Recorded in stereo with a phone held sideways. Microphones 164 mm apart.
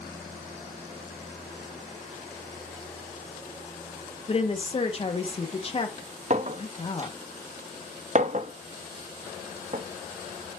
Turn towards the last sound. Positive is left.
turn(degrees=-45)  # may be behind; listen again after turning